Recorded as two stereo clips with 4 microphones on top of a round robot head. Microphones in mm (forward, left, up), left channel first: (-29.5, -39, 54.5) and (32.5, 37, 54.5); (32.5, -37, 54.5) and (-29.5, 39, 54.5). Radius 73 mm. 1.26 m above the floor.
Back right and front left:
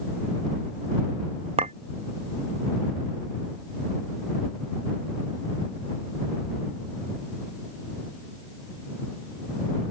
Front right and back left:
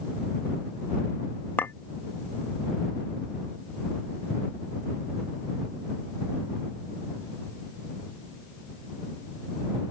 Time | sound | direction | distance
1.6 | a clink | 20° left | ?